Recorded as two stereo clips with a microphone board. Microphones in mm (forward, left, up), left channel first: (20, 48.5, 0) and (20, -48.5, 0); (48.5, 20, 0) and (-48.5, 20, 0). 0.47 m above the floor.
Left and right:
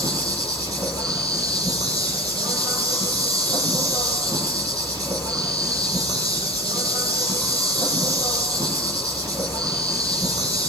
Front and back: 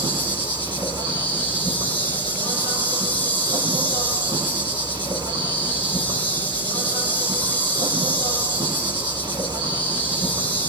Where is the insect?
140° right, 7 m.